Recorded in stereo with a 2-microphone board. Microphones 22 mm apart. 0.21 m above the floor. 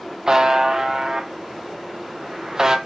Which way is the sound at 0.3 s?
35° right (ahead or behind).